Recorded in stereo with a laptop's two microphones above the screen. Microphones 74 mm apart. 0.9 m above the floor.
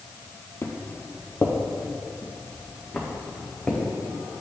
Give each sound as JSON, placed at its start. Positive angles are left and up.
{"t": 0.6, "sound": "footsteps", "side_deg": 35, "distance_m": 1.2}